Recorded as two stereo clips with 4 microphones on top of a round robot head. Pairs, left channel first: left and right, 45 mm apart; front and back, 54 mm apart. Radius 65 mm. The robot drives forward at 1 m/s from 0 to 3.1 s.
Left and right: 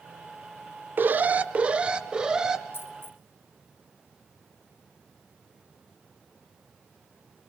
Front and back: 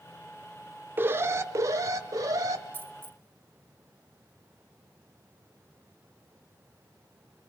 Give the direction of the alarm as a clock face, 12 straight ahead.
4 o'clock.